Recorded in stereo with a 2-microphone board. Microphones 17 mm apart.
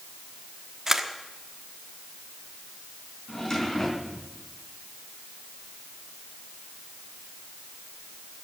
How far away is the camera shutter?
About 1.2 m.